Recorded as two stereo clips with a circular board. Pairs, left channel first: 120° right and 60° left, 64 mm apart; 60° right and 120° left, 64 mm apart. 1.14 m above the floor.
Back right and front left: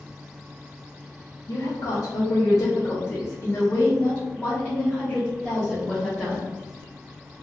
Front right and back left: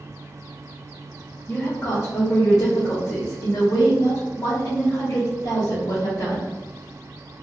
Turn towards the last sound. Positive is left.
turn(degrees=-25)